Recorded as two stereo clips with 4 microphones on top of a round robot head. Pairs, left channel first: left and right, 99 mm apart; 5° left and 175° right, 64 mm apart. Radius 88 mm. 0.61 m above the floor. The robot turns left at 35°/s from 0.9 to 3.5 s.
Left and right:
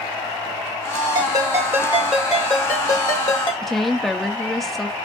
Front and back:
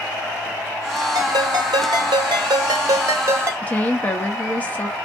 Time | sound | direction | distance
1.1 | a ringtone | 140° right | 0.7 m
3.6 | a woman speaking | 5° left | 0.6 m